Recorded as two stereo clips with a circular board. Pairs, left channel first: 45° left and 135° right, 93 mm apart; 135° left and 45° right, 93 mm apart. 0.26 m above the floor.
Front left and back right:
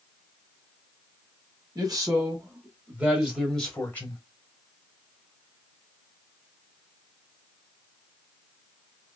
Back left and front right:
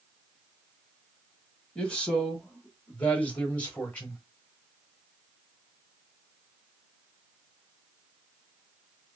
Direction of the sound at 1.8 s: 150° right.